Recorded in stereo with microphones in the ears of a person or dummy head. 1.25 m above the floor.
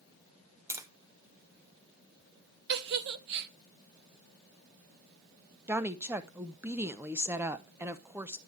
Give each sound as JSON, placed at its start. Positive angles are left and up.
{"t": 0.7, "sound": "tapping", "side_deg": -15, "distance_m": 0.8}
{"t": 2.7, "sound": "a giggle", "side_deg": -55, "distance_m": 0.7}
{"t": 5.7, "sound": "a woman speaking", "side_deg": -10, "distance_m": 0.7}